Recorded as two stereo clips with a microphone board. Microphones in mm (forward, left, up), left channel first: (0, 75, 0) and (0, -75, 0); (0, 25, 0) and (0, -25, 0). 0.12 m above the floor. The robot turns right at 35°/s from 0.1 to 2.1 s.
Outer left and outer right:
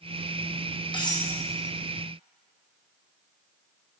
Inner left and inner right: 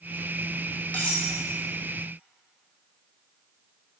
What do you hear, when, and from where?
0.9 s cutlery clinking: 35° left (ahead or behind), 3 m; by 1.3 s 20° left (ahead or behind), 3 m